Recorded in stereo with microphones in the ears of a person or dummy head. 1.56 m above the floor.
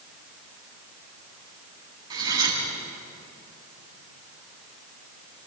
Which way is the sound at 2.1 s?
30° right (ahead or behind).